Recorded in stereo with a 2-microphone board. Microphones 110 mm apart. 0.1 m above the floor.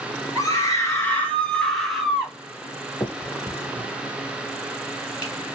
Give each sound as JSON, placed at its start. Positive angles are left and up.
{"t": 0.3, "sound": "a scream", "side_deg": 35, "distance_m": 1.5}
{"t": 3.0, "sound": "a finger snap", "side_deg": 35, "distance_m": 1.7}